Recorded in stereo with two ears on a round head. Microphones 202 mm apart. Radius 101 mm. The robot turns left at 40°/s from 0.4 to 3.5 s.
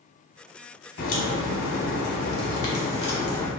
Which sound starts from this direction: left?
A crack, at 1.0 s.